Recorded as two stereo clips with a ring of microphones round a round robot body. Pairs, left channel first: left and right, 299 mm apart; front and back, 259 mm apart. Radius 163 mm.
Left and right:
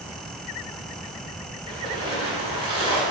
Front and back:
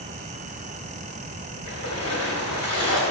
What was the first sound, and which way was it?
A splash, 15° right.